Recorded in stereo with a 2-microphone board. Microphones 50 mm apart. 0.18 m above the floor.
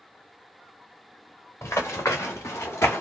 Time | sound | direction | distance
1.6 | running footsteps | 85° left | 1.4 m